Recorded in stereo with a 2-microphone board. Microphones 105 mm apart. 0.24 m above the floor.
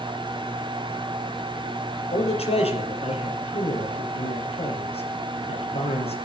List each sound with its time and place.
2.1 s a man speaking: 75° left (ahead or behind), 5.5 m